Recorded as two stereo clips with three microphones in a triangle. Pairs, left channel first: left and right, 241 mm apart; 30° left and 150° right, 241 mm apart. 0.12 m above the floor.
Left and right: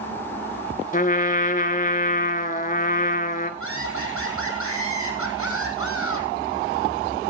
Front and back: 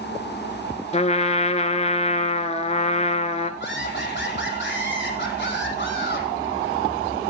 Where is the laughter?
70° left, 5 m.